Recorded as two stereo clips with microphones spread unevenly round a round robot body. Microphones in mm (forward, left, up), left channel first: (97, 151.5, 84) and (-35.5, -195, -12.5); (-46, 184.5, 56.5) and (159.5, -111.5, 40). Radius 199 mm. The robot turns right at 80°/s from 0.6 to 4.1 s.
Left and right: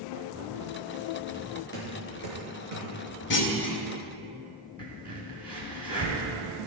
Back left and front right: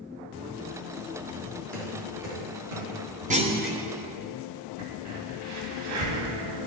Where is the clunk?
Straight ahead, 1.1 m; by 3.8 s 40° left, 1.1 m.